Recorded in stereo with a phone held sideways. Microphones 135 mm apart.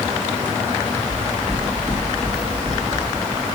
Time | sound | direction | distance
1.1 | footsteps | 10° left (ahead or behind) | 2.5 m